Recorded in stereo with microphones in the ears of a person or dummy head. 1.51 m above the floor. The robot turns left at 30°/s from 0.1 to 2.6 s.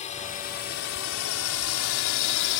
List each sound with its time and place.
0.0 s a drone: 35° left (ahead or behind); by 2.6 s 60° left (ahead or behind)